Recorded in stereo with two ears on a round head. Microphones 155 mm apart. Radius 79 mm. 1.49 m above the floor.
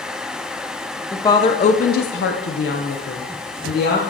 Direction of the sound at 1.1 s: 15° left (ahead or behind).